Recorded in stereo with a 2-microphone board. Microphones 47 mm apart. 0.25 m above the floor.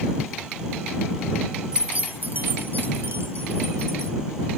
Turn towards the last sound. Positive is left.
turn(degrees=-65)  # may be behind; listen again after turning